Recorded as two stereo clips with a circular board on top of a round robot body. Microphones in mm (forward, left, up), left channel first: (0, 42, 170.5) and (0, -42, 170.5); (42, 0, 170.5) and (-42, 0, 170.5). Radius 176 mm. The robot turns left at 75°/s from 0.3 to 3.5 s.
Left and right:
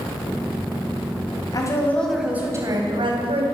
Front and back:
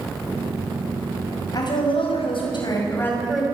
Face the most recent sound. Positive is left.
turn(degrees=-100)